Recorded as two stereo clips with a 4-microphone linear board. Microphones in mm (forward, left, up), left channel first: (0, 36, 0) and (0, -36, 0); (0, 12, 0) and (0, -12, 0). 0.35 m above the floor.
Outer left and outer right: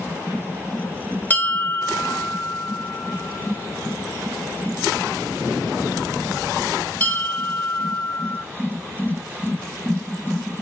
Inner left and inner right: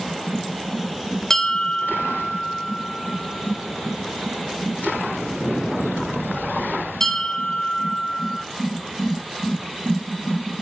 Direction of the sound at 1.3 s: 25° left (ahead or behind).